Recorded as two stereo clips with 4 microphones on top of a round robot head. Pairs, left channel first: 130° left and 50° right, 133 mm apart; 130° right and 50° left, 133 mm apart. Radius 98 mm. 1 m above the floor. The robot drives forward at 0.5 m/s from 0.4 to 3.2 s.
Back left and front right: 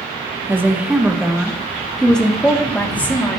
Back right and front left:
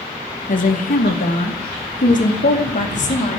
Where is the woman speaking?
125° right, 1.2 m; by 3.4 s 155° right, 2.5 m.